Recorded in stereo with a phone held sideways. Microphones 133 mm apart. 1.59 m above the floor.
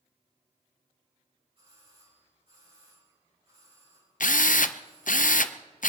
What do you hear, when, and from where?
1.6 s a doorbell: 45° right (ahead or behind), 8 m
4.2 s a drill: 85° left, 0.6 m